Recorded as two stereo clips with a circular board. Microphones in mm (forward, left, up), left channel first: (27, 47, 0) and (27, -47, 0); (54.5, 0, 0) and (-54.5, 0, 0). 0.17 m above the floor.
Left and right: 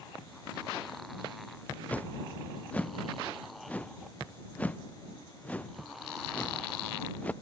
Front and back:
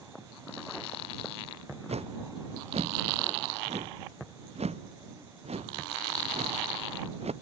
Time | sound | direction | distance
1.9 | a whoosh | 165° left | ?